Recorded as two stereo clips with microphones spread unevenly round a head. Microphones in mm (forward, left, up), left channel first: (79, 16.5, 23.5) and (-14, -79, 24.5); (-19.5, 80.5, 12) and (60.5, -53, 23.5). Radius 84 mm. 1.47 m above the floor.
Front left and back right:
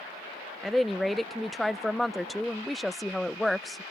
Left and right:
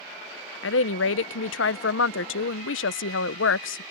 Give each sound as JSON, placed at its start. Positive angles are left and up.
{"t": 0.6, "sound": "a woman speaking", "azimuth_deg": 135}